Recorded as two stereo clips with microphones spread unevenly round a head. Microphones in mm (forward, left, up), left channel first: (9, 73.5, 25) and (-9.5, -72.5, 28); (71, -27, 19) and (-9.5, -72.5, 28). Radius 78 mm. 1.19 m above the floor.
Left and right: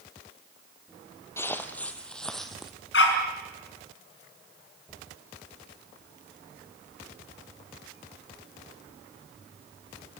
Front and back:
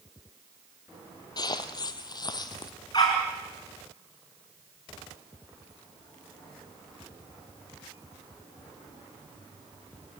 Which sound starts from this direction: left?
A dog barking, at 2.9 s.